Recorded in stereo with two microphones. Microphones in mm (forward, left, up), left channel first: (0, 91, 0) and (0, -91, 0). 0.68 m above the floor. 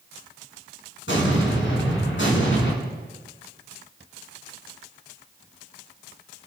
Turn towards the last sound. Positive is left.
turn(degrees=85)